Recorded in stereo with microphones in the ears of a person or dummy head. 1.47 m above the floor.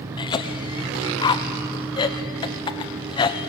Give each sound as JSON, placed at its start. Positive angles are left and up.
{"t": 0.2, "sound": "a cough", "side_deg": 20, "distance_m": 0.9}